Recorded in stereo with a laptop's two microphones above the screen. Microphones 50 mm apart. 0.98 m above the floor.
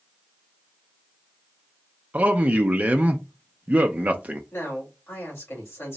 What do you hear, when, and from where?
2.1 s a man speaking: 35° right (ahead or behind), 0.6 m
4.5 s a man speaking: 60° left (ahead or behind), 2 m